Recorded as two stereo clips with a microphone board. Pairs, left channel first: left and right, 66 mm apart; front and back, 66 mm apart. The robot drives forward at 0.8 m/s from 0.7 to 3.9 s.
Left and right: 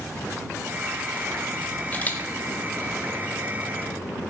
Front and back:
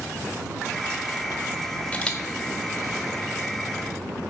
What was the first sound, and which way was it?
A camera shutter, 50° left.